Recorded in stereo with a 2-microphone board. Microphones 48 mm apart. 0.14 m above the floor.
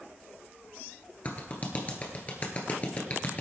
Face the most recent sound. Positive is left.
turn(degrees=35)  # may be behind; listen again after turning